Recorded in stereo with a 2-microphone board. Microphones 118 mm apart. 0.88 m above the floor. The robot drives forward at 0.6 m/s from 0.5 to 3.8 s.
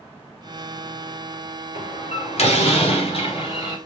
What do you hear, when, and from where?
1.8 s a door slam: 70° left (ahead or behind), 2.5 m; by 3.8 s 50° left (ahead or behind), 3 m